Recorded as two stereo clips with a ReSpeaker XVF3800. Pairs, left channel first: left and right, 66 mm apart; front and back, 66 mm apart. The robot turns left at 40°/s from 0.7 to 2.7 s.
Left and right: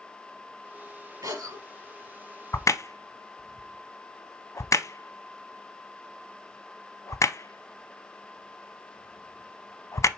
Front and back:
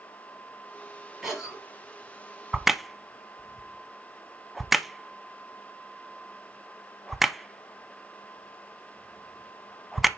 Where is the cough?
95° right, 3.5 m; by 1.6 s 110° right, 3.5 m.